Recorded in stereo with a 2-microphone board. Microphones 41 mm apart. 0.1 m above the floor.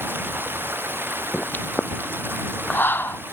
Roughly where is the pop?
Left.